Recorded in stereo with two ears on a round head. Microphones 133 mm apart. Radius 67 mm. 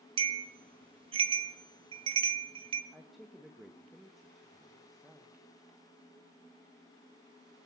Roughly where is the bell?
Right.